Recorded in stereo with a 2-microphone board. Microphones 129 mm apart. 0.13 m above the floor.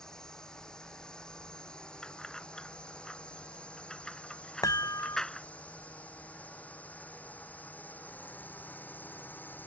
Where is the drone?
5° left (ahead or behind); by 9.7 s 15° left (ahead or behind).